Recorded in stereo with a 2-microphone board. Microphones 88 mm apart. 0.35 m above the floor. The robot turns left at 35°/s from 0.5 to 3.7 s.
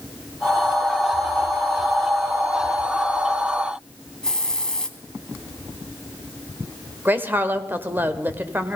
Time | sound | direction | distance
4.2 | a hiss | 10° left (ahead or behind) | 1.3 m
7.0 | a woman speaking | 20° right (ahead or behind) | 1.2 m